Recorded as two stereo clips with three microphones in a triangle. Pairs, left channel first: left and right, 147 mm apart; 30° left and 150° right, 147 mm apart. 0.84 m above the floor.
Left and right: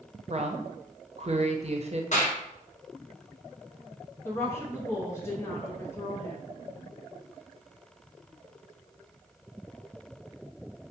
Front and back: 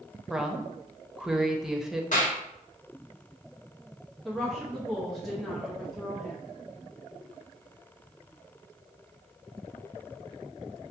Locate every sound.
0.3 s a woman speaking: 65° right, 0.6 m
2.1 s a clap: 55° left, 1.1 m
4.2 s a woman speaking: 115° left, 0.7 m